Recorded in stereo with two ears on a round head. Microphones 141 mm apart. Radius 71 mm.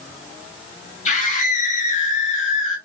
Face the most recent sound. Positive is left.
turn(degrees=55)  # may be behind; listen again after turning